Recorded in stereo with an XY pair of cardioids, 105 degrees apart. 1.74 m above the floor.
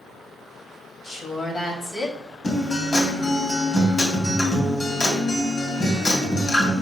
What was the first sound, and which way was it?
A woman speaking, 25° left.